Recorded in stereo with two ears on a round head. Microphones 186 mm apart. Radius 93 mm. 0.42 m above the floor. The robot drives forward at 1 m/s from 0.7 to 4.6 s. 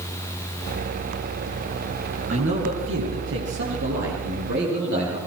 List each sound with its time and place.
2.3 s a man speaking: 70° right (ahead or behind), 8 m; by 5.2 s 55° right (ahead or behind), 9 m